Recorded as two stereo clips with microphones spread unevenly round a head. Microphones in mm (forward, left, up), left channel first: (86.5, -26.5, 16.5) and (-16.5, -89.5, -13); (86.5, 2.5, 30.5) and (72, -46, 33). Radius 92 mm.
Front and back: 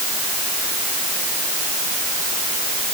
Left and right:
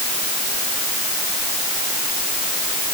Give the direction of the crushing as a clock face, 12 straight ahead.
I don't hear crushing.